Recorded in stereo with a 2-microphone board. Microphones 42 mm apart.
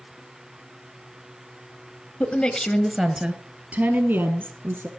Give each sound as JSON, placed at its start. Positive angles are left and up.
{"t": 2.2, "sound": "a woman speaking", "side_deg": 40, "distance_m": 1.5}